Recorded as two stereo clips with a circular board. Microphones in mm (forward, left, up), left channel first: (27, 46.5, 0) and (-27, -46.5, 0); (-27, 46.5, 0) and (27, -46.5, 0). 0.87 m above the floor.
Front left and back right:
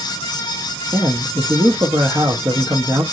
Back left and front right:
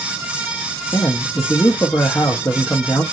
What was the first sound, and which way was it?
A man speaking, 175° right.